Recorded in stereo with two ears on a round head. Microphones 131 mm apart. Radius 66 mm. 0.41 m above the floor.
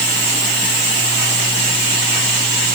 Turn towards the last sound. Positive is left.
No sound to turn to.